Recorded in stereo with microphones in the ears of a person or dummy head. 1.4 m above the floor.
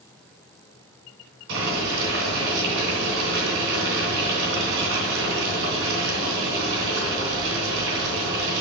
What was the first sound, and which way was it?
Boiling, 70° right (ahead or behind).